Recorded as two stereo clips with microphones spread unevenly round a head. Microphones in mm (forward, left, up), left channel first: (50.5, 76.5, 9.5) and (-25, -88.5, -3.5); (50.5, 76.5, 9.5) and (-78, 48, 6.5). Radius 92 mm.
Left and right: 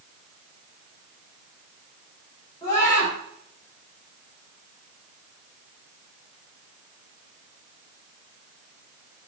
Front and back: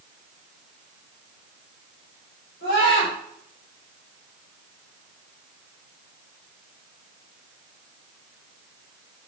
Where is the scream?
5° right, 6 m.